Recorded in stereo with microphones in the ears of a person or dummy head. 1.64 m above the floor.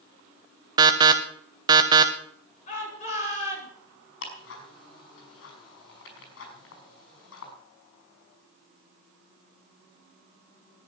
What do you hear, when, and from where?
0.8 s an alarm: 20° right (ahead or behind), 1.0 m
2.7 s a shout: 40° left (ahead or behind), 8.5 m
4.2 s ticking: 80° left, 5.5 m